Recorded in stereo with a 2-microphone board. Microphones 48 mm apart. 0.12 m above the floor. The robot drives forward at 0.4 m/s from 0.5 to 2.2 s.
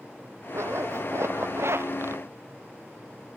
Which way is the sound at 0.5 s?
70° right (ahead or behind).